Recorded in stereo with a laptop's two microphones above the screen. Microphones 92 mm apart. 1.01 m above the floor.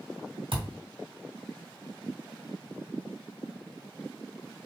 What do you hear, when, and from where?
0.5 s a thud: 70° right (ahead or behind), 1.8 m